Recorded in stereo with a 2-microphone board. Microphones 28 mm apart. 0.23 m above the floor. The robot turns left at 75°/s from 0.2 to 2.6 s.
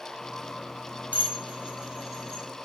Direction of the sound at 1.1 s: 65° right (ahead or behind).